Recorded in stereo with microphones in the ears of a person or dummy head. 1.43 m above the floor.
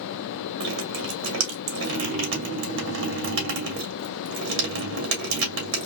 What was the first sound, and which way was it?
Dripping, 65° right (ahead or behind).